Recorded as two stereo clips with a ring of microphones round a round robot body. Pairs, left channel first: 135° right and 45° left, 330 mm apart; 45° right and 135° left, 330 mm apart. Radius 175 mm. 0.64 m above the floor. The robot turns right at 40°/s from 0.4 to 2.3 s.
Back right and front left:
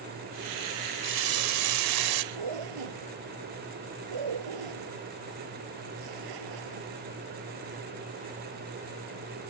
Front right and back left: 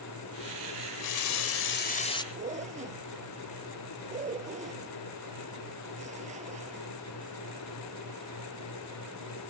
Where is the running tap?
15° right; by 2.2 s 35° left.